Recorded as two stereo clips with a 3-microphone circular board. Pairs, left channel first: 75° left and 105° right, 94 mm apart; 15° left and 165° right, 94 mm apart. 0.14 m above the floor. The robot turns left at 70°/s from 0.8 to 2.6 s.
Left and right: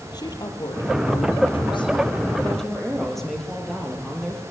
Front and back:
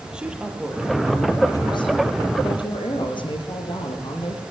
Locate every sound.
0.1 s a woman speaking: 115° left, 4.5 m; by 4.4 s 10° right, 4.5 m